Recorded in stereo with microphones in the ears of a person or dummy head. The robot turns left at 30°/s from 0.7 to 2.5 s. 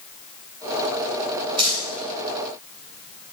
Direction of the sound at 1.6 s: 30° right (ahead or behind).